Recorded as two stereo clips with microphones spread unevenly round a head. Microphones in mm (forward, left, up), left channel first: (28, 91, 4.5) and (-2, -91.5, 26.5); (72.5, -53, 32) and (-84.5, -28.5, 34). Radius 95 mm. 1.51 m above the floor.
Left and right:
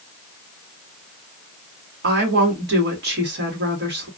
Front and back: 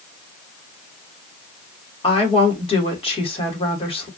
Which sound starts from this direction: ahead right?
A woman speaking, at 2.0 s.